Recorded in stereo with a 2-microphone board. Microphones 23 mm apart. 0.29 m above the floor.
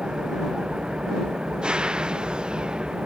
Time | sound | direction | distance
0.0 | an engine running | 45° right (ahead or behind) | ?